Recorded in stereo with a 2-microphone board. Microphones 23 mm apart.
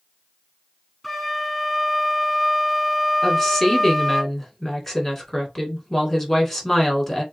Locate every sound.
1.0 s a flute: 5° right (ahead or behind), 1.8 m
3.2 s a woman speaking: 10° left (ahead or behind), 1.7 m